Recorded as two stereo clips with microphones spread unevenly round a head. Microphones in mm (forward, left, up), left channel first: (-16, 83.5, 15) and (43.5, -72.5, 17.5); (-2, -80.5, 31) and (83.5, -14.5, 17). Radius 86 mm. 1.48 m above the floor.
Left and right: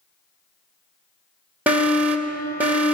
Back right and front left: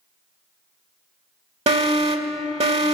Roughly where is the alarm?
Ahead.